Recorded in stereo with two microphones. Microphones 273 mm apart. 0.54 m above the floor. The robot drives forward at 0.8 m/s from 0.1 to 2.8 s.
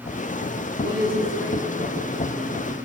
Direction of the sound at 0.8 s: 45° right (ahead or behind).